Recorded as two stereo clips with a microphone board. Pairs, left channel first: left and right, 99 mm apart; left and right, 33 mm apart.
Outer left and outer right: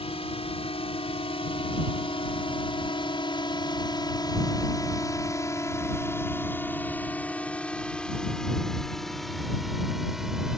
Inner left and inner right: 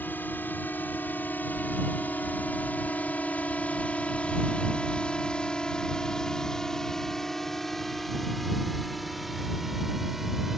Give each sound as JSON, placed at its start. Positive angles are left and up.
{"t": 0.0, "sound": "a drone", "side_deg": 80}